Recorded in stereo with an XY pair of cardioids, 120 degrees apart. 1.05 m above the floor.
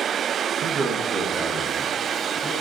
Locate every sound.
0.6 s a man speaking: 65° right, 0.9 m; by 2.5 s 35° right, 3 m